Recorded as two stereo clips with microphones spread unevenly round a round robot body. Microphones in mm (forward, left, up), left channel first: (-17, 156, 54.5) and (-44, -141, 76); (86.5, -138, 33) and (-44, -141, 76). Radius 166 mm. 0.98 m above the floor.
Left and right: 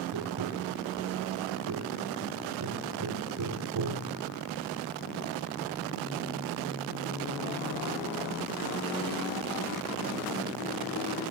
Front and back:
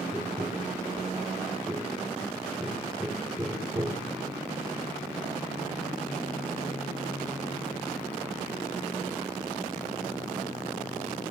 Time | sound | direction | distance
0.1 | tapping | 115° right | 4 m